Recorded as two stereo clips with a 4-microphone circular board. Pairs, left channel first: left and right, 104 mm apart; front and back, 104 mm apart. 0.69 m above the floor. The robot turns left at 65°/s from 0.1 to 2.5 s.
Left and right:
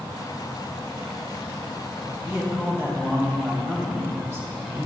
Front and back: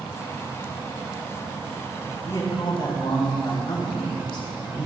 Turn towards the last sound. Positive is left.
turn(degrees=-30)